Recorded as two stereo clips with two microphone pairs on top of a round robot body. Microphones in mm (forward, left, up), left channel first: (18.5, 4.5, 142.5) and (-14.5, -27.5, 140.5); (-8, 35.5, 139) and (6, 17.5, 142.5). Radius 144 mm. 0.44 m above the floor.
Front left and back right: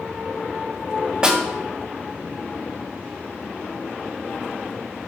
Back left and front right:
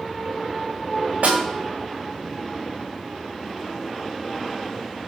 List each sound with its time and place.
1.2 s a snare drum: 65° right, 3 m